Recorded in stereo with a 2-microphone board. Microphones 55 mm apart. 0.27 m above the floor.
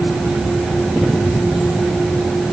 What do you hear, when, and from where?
Only background noise.